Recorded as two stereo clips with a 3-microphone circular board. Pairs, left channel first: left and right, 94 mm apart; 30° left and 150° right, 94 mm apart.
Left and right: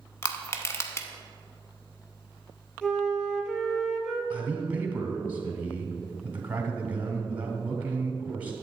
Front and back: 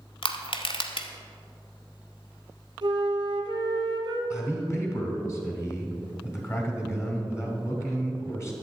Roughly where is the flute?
Behind.